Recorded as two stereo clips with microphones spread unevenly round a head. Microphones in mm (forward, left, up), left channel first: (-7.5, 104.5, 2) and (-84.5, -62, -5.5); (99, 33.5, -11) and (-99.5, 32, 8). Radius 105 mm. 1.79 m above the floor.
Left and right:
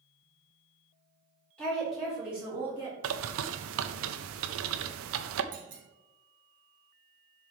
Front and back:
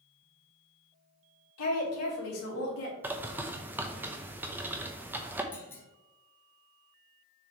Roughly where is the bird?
Right.